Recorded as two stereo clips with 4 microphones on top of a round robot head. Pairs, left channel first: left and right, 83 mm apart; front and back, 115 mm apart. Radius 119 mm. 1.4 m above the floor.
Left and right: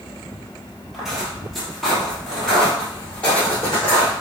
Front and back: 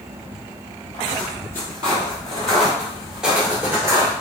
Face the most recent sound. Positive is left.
turn(degrees=150)